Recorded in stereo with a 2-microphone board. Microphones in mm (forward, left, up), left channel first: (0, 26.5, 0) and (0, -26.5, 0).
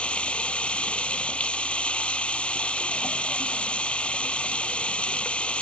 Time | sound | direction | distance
0.0 | running water | 25° left (ahead or behind) | ?